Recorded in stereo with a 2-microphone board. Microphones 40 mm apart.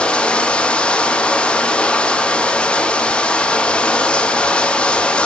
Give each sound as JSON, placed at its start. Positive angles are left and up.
{"t": 0.0, "sound": "running water", "side_deg": 25, "distance_m": 1.1}